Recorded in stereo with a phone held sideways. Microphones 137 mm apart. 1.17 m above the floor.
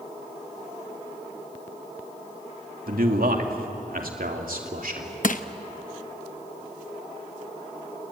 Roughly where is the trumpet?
I don't hear a trumpet.